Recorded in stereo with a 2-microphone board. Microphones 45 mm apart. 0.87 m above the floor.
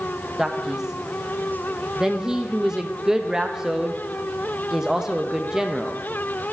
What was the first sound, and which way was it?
A man speaking, 15° right (ahead or behind).